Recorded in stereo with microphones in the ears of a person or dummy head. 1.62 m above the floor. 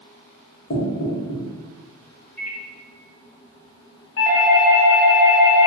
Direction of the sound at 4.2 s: 80° left.